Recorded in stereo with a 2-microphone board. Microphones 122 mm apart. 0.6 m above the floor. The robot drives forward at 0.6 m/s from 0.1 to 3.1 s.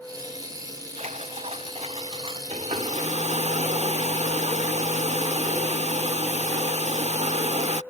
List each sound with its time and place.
1.0 s a splash: 75° right (ahead or behind); by 2.4 s 50° right (ahead or behind)
2.5 s a hair dryer: 65° right (ahead or behind)